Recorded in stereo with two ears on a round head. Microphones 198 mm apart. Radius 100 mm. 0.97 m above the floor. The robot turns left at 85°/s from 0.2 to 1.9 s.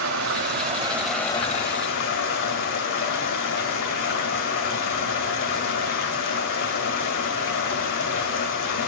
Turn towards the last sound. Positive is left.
turn(degrees=110)